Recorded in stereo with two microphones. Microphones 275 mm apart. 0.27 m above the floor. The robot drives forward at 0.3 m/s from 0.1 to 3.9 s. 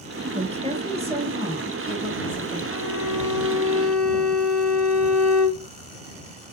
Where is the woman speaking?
25° right (ahead or behind), 1.1 m; by 2.6 s 20° right (ahead or behind), 1.3 m.